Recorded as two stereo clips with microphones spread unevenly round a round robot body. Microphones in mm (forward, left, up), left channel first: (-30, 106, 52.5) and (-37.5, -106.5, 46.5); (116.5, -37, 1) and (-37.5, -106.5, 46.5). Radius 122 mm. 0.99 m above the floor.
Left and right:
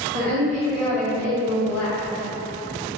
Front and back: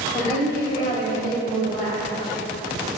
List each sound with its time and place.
0.1 s a woman speaking: 40° right, 1.8 m; by 2.0 s 110° left, 1.4 m